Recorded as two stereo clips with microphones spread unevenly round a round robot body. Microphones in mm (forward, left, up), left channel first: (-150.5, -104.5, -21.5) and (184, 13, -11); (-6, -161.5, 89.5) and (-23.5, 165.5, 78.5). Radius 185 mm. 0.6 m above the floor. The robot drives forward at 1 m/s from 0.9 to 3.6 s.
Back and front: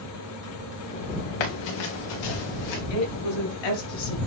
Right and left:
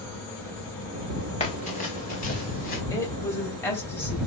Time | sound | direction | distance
1.4 | running footsteps | 160° right | 2.5 m
2.9 | a woman speaking | 170° right | 3.5 m